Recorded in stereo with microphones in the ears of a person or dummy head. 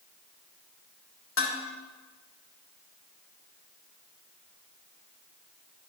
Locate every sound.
1.4 s dishes clattering: 60° left (ahead or behind), 1.9 m